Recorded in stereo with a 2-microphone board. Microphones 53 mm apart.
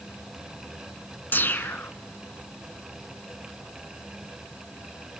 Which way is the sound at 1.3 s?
40° left (ahead or behind).